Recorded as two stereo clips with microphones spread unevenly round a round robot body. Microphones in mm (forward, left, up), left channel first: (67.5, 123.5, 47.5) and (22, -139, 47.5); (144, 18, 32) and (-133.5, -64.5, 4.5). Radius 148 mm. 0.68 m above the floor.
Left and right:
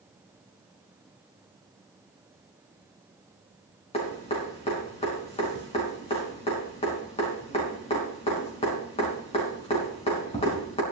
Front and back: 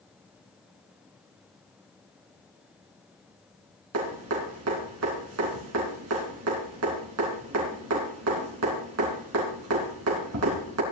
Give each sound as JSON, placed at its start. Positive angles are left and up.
{"t": 3.9, "sound": "dripping", "azimuth_deg": 150, "distance_m": 3.5}